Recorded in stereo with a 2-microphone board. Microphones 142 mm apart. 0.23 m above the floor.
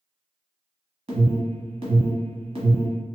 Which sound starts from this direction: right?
An alarm, at 1.1 s.